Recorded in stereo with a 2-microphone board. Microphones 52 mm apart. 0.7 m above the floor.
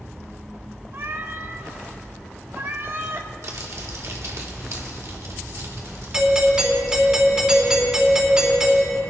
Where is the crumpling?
65° right (ahead or behind), 1.6 m.